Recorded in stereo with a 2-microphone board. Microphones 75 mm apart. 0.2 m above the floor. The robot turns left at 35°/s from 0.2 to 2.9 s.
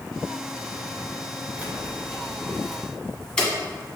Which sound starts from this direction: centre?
Keys jangling, at 1.6 s.